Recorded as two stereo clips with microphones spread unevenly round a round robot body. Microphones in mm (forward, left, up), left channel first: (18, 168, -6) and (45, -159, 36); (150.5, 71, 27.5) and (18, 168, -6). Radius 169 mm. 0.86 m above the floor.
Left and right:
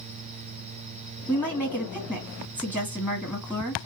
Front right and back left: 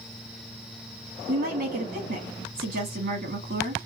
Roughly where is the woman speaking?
Behind.